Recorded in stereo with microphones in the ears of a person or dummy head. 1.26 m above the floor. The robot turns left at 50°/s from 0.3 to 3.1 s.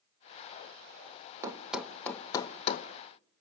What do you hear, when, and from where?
1.4 s a thud: 10° right (ahead or behind), 0.7 m; by 2.9 s 35° left (ahead or behind), 0.7 m